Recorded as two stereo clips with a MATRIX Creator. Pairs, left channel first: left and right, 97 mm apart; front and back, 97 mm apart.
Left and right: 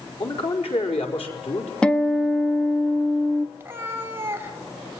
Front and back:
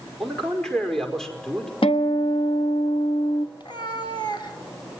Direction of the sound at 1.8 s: 10° left.